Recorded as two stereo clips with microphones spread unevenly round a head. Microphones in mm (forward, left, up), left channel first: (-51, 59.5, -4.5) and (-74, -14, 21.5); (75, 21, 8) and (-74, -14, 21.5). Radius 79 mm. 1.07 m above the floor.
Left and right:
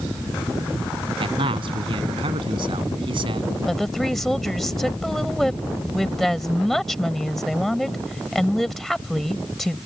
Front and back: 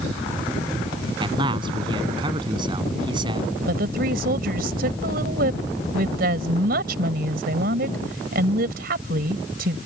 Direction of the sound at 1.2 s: 105° right.